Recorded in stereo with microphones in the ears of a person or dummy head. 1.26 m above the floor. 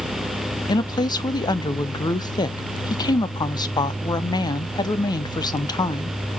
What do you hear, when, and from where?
0.7 s a woman speaking: 15° left (ahead or behind), 0.5 m